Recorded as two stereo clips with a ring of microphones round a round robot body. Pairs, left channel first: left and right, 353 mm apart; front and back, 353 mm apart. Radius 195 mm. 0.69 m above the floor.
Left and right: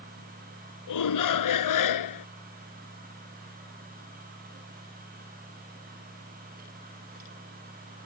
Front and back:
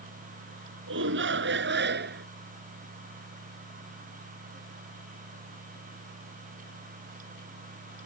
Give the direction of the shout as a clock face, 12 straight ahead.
8 o'clock.